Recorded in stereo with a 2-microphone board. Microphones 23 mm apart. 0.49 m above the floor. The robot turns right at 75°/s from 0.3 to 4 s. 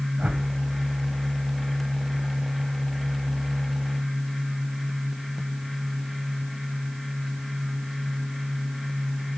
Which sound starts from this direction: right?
A whoosh, at 0.2 s.